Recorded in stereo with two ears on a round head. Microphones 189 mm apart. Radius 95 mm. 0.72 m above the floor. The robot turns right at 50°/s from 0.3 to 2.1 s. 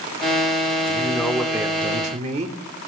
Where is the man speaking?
155° left, 1.8 m; by 2.6 s 145° right, 1.8 m.